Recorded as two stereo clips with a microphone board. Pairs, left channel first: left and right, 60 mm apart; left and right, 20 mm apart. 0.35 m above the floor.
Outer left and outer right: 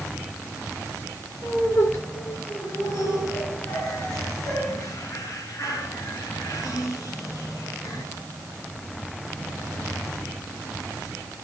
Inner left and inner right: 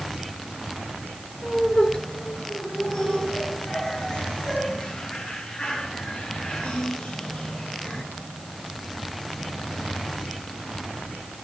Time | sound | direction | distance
1.4 | laughter | 50° left (ahead or behind) | 7 m